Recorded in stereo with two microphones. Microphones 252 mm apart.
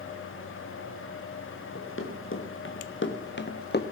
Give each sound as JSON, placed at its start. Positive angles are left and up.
{"t": 1.8, "sound": "running footsteps", "side_deg": 55, "distance_m": 2.5}